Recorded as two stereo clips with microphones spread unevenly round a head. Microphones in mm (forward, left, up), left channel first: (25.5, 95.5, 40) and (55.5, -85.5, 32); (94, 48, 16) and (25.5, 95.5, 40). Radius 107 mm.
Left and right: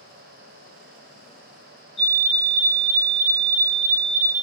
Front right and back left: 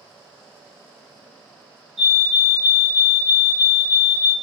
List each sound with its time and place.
2.0 s a fire alarm: 165° left, 1.3 m